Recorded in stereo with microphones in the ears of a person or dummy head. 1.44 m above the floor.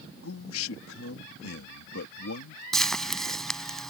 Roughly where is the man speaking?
Left.